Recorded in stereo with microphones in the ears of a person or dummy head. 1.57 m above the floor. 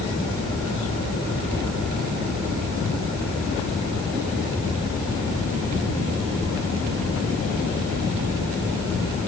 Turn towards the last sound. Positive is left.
No sound to turn to.